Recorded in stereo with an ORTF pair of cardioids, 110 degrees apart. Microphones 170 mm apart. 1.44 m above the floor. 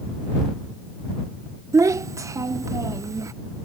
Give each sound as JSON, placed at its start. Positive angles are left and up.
{"t": 1.7, "sound": "a child speaking", "azimuth_deg": -20}